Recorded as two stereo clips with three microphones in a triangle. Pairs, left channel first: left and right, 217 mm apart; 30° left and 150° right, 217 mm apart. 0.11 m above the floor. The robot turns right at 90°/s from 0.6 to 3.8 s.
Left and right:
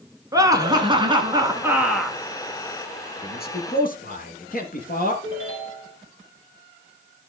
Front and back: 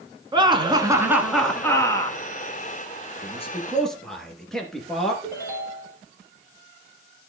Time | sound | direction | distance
0.3 | laughter | 130° right | 1.2 m
3.2 | a man speaking | 65° left | 2.0 m
5.2 | a ringtone | 105° left | 2.5 m